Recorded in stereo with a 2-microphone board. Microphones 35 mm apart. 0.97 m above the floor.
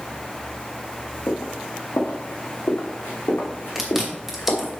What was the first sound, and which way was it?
Footsteps, 70° left (ahead or behind).